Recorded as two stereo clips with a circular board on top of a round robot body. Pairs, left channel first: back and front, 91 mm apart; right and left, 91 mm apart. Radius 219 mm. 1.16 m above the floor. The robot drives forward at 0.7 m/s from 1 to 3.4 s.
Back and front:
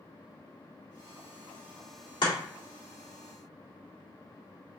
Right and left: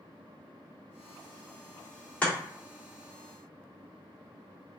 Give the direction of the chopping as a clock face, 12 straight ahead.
6 o'clock.